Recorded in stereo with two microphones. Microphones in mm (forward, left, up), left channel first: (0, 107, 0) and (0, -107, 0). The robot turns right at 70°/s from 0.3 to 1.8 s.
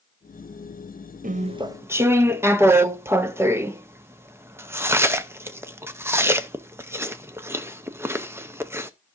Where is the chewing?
40° right (ahead or behind), 0.7 m; by 8.9 s 10° right (ahead or behind), 0.7 m.